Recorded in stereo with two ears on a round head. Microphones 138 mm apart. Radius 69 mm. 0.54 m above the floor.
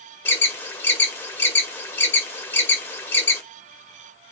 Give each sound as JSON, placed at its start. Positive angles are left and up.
{"t": 0.2, "sound": "an alarm", "side_deg": 15, "distance_m": 1.4}